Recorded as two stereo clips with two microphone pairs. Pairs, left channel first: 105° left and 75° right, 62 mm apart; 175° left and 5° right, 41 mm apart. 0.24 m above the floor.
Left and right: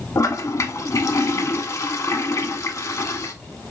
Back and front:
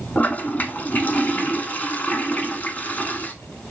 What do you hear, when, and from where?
0.1 s a toilet flushing: 130° left, 0.6 m